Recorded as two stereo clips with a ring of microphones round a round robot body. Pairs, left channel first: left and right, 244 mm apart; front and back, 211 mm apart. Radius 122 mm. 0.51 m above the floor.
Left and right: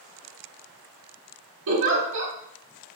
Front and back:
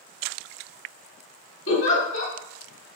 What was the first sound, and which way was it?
A giggle, 45° right.